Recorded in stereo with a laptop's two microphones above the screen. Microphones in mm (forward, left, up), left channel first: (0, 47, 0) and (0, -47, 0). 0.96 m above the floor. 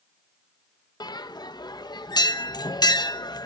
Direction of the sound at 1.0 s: 50° left (ahead or behind).